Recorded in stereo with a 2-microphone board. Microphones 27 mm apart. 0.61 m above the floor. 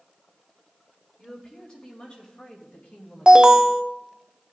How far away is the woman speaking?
About 2.5 m.